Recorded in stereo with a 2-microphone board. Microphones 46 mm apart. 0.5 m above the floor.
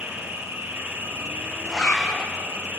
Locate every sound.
0.0 s an insect: 65° right (ahead or behind), 7 m
1.6 s a zipper: 10° left (ahead or behind), 4.5 m